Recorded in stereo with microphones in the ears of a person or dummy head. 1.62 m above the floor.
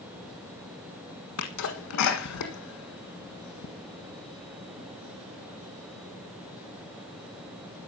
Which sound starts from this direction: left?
A sneeze, at 1.4 s.